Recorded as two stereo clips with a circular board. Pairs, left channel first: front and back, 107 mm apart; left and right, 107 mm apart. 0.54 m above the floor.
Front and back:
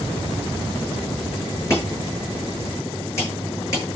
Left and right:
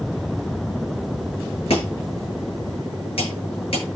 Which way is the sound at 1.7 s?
65° left.